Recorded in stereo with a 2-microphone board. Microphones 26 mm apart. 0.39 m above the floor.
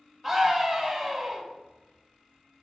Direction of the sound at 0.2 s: 5° right (ahead or behind).